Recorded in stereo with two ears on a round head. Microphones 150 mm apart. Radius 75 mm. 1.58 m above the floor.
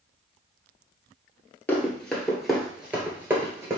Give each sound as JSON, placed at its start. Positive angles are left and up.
{"t": 1.7, "sound": "running footsteps", "side_deg": 10, "distance_m": 1.6}